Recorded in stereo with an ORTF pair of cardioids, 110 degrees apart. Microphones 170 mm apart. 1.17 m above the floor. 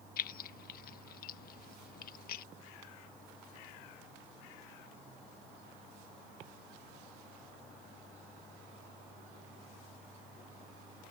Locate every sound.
0.2 s keys jangling: 60° left